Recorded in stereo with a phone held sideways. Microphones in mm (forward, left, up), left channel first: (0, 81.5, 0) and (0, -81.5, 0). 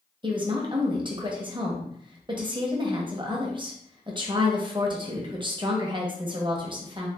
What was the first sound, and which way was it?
A woman speaking, 30° right (ahead or behind).